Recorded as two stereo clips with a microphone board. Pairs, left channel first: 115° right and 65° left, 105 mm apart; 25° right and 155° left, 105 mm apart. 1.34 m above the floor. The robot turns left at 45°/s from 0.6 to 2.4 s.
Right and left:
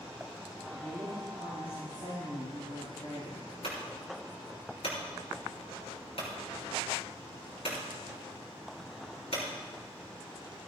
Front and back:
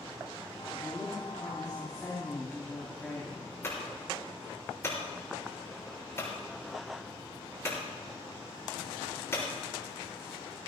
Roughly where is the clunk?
Right.